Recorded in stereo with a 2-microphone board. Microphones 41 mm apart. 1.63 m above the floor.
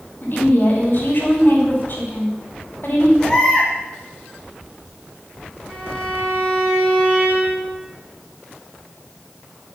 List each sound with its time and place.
0.2 s a woman speaking: 50° left (ahead or behind), 5 m
3.2 s a baby crying: 10° left (ahead or behind), 6.5 m
5.7 s a violin: 10° right (ahead or behind), 8 m